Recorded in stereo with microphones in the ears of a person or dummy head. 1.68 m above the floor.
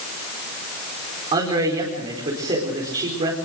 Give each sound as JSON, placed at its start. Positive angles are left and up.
{"t": 1.3, "sound": "a man speaking", "side_deg": -30, "distance_m": 5.0}